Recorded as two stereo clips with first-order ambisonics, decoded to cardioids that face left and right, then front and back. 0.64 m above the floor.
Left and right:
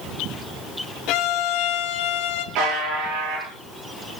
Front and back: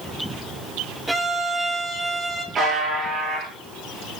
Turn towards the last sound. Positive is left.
turn(degrees=-120)